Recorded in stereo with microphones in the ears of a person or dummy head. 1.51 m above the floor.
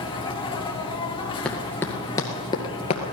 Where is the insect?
20° left (ahead or behind), 1.7 m.